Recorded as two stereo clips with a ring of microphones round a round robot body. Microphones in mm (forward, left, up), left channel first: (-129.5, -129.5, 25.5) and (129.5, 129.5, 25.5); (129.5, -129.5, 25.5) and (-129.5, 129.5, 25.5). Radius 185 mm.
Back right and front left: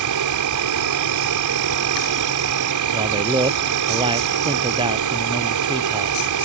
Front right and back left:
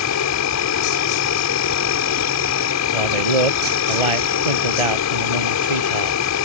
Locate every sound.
0.0 s an insect: 5° left
2.9 s a man speaking: 125° left